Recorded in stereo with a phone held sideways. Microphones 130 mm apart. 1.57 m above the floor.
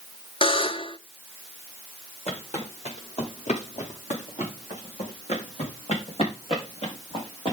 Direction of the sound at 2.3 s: 55° left (ahead or behind).